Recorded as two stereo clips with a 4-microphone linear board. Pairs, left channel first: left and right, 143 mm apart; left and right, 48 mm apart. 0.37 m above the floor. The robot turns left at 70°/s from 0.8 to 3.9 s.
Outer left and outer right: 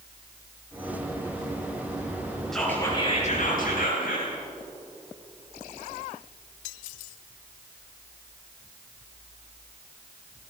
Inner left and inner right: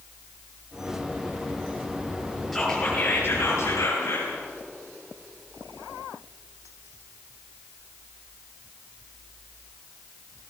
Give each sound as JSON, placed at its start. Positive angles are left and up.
{"t": 2.5, "sound": "whispering", "azimuth_deg": 180, "distance_m": 9.0}